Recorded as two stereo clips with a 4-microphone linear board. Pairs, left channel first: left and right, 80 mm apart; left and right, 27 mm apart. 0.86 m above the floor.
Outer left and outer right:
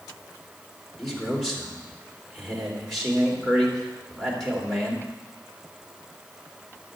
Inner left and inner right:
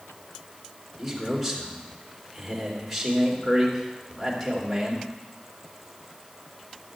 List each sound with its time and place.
1.0 s a man speaking: 5° left (ahead or behind), 3 m